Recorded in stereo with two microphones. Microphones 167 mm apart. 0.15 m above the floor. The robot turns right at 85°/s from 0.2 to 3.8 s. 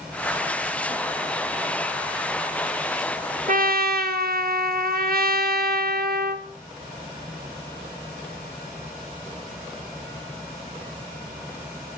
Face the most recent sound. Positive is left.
turn(degrees=-65)  # may be behind; listen again after turning